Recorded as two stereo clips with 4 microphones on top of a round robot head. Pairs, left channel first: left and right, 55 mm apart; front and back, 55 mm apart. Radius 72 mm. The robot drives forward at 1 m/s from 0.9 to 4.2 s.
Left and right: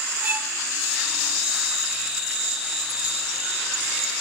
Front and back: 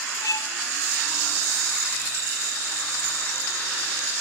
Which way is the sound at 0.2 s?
25° right.